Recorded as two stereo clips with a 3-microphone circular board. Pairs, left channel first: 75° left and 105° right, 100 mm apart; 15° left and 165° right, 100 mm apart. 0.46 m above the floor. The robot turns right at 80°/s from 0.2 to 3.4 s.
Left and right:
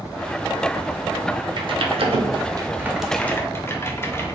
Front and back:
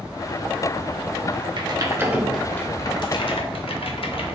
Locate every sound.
1.6 s typing on a keyboard: 135° right, 0.6 m; by 4.3 s 10° left, 0.6 m